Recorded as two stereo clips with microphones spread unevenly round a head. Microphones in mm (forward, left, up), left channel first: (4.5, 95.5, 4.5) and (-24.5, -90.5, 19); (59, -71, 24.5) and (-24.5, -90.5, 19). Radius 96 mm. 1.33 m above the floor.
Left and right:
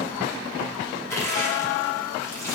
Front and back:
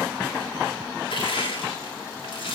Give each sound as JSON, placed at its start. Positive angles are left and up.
{"t": 1.1, "sound": "crushing", "azimuth_deg": 5, "distance_m": 9.5}